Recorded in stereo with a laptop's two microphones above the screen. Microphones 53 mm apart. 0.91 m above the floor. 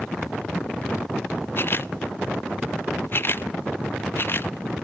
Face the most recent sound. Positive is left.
turn(degrees=45)  # may be behind; listen again after turning